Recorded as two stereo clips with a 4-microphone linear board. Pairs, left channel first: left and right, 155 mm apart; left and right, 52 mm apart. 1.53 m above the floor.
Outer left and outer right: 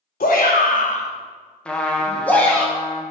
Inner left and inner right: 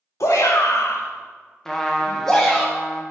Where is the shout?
70° left (ahead or behind), 0.5 m; by 2.6 s 5° left (ahead or behind), 1.1 m.